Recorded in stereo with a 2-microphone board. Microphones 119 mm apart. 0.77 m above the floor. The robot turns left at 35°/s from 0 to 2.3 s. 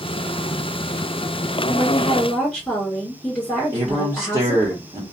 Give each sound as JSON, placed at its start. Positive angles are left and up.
{"t": 1.7, "sound": "a woman speaking", "side_deg": -10, "distance_m": 1.8}
{"t": 3.7, "sound": "a man speaking", "side_deg": -30, "distance_m": 0.8}